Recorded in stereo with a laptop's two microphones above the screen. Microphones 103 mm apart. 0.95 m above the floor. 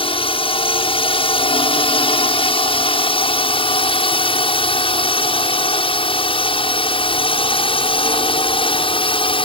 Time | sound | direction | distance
0.0 | a drone | 60° left (ahead or behind) | ?